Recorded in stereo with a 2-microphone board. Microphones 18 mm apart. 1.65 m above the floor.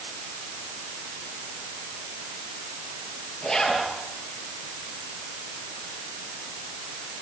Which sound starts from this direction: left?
A zipper, at 3.4 s.